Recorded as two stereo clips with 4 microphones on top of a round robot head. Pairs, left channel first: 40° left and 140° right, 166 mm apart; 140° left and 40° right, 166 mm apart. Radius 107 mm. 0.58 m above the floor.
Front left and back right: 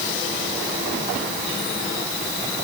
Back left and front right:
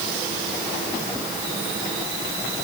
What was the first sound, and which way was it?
Only background noise.